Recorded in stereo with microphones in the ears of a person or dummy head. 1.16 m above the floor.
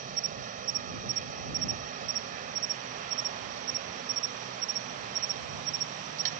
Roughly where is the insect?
Right.